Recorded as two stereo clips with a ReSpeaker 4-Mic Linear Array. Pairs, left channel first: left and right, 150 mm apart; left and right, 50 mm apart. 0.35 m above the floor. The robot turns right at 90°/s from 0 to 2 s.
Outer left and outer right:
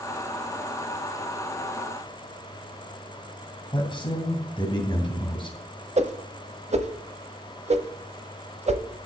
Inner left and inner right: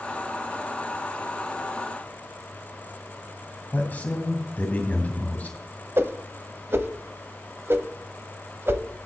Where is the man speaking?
30° left (ahead or behind), 2.5 m.